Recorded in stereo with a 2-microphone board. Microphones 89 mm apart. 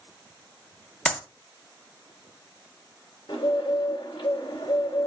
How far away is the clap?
About 0.6 m.